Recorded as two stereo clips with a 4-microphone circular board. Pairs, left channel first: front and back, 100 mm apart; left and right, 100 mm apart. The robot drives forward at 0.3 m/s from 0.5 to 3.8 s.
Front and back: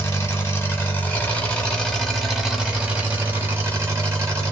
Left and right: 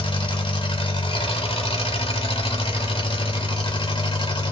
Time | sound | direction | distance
0.0 | an engine running | 65° left | 1.1 m